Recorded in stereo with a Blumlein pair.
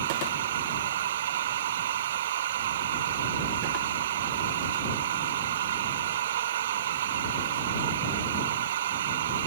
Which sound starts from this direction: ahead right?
A machine running, at 0.0 s.